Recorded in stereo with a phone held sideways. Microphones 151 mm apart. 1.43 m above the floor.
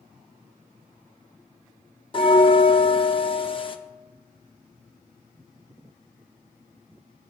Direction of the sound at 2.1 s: 35° left (ahead or behind).